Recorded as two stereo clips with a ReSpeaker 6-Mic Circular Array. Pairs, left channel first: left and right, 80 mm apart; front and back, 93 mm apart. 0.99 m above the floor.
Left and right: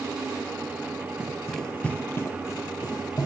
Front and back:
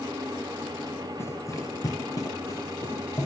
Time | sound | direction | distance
1.2 | running footsteps | 30° right | 1.1 m